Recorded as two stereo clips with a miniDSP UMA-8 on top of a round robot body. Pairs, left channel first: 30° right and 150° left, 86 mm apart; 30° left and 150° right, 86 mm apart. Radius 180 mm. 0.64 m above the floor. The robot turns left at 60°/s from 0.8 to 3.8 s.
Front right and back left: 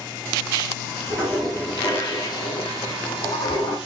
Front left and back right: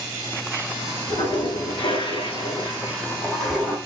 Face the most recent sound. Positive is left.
turn(degrees=-80)